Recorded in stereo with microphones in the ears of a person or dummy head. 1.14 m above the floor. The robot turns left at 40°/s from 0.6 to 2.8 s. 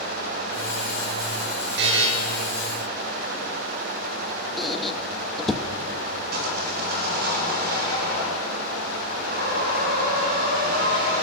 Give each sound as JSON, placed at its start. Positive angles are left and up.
{"t": 1.8, "sound": "a buzzer", "side_deg": -60, "distance_m": 7.5}
{"t": 4.6, "sound": "a squeak", "side_deg": 0, "distance_m": 1.0}
{"t": 6.3, "sound": "sawing", "side_deg": -55, "distance_m": 6.0}